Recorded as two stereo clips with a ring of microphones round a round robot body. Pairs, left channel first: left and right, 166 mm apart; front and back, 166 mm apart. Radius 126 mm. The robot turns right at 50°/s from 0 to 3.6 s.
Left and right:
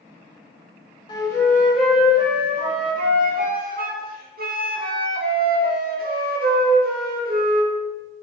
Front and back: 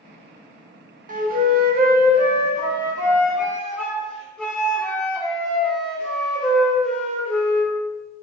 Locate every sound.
1.1 s a flute: 150° left, 0.6 m; by 7.8 s 85° right, 0.6 m